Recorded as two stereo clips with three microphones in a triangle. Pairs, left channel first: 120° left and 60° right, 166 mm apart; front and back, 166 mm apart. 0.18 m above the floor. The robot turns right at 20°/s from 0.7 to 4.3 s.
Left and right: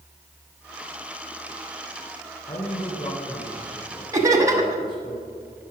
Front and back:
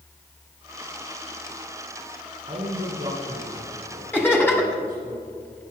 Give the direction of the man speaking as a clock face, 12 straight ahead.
7 o'clock.